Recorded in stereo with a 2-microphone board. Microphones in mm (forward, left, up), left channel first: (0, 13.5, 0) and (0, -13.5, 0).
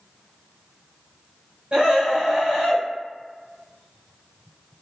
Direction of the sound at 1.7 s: 40° right (ahead or behind).